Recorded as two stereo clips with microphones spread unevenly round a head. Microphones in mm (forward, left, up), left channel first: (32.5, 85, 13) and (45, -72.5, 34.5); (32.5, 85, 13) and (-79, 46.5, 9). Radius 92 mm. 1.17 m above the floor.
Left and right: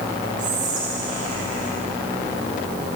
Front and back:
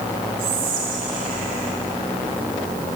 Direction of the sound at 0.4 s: 135° right.